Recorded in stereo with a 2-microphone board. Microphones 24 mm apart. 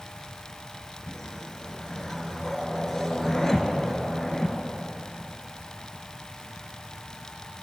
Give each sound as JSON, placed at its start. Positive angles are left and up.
{"t": 1.1, "sound": "a whoosh", "side_deg": 20, "distance_m": 0.7}